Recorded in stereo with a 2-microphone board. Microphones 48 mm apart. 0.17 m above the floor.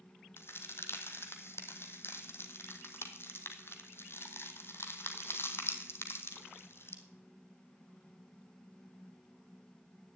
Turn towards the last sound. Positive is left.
turn(degrees=55)  # may be behind; listen again after turning